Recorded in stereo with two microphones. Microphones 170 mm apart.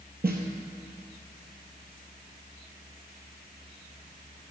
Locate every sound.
0.2 s a snare drum: 70° right (ahead or behind), 1.2 m